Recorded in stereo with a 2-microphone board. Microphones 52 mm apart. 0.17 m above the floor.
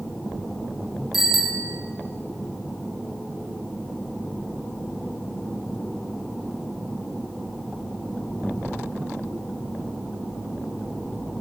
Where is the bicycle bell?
5° right (ahead or behind), 5.5 m.